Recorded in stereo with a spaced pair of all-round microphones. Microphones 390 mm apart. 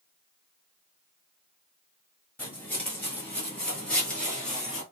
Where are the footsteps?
5° left (ahead or behind), 1.6 m; by 4.8 s centre (ahead or behind), 1.6 m.